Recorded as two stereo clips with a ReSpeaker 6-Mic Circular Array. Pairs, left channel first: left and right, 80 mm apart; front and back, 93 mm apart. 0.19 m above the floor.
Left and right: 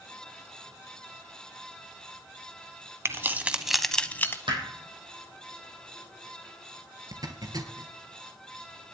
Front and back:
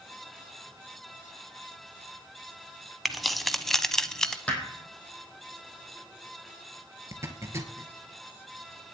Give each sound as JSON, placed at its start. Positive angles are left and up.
{"t": 3.0, "sound": "keys jangling", "azimuth_deg": -90, "distance_m": 1.0}
{"t": 4.5, "sound": "hammering", "azimuth_deg": -75, "distance_m": 4.5}
{"t": 7.1, "sound": "a zipper", "azimuth_deg": -125, "distance_m": 2.0}